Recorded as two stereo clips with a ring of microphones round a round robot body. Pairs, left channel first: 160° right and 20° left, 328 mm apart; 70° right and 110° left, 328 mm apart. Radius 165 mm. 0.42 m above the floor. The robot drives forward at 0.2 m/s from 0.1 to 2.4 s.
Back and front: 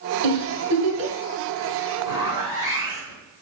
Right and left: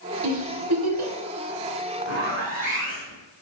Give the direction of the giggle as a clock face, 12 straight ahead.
10 o'clock.